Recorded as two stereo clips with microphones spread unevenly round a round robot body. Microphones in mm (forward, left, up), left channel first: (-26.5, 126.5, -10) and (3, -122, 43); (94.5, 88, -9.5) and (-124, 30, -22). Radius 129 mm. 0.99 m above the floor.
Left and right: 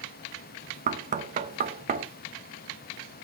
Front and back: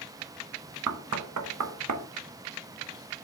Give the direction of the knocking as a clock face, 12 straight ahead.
5 o'clock.